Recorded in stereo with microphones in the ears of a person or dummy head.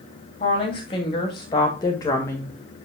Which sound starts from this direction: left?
A woman speaking, at 0.4 s.